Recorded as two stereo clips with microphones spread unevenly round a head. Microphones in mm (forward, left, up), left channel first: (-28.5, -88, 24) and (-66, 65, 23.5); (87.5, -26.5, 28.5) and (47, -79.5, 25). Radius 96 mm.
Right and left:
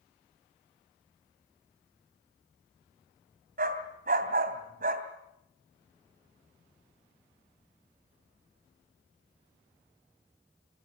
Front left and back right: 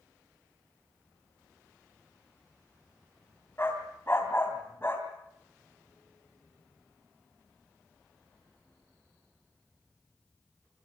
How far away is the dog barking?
About 2.5 m.